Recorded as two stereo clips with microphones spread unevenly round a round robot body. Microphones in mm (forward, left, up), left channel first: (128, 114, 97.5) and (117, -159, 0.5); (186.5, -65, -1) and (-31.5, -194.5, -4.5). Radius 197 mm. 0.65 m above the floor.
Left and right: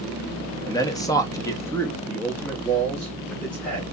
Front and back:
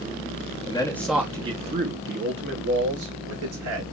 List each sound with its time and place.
0.7 s a man speaking: 20° right, 0.6 m; by 3.8 s 175° right, 1.5 m